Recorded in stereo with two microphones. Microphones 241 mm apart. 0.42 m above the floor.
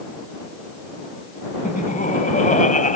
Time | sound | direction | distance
1.6 | laughter | 35° left (ahead or behind) | ?